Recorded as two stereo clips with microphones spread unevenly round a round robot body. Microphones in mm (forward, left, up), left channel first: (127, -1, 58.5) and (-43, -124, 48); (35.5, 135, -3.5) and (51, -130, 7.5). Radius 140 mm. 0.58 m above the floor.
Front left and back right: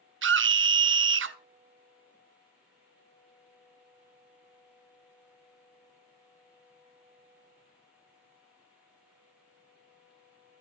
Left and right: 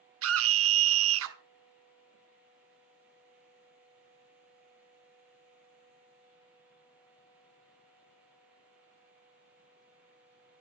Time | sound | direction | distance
0.2 | a scream | 130° right | 1.2 m